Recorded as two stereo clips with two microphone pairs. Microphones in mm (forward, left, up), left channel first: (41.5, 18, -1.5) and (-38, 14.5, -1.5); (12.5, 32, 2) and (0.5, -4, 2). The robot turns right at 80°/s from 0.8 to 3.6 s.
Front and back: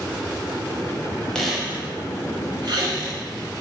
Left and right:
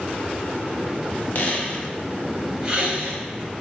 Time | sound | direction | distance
1.4 | a squeak | 80° left | 0.6 m